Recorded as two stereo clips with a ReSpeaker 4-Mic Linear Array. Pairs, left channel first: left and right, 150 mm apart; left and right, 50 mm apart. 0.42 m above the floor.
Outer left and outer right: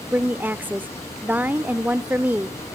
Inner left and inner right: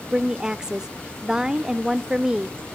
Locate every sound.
0.1 s a woman speaking: 10° right (ahead or behind), 0.9 m